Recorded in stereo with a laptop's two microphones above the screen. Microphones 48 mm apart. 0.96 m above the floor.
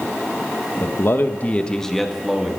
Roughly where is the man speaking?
Left.